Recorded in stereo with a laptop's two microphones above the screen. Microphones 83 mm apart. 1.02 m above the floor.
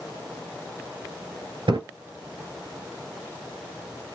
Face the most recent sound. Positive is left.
turn(degrees=-70)  # may be behind; listen again after turning